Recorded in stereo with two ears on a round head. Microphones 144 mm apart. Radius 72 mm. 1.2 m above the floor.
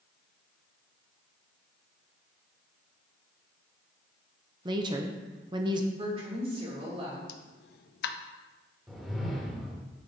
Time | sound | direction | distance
4.7 | a woman speaking | 30° right (ahead or behind) | 0.9 m
6.0 | a woman speaking | 35° right (ahead or behind) | 2.5 m
7.3 | a pop | 70° left (ahead or behind) | 0.6 m
8.9 | a whoosh | centre (ahead or behind) | 1.1 m